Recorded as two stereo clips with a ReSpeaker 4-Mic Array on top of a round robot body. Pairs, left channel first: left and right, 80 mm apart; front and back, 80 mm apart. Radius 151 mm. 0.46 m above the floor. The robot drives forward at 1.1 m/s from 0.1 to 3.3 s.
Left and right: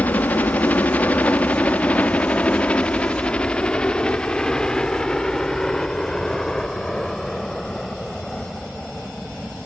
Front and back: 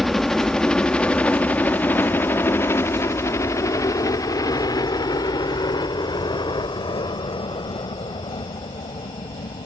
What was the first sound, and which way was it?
A helicopter, 85° left.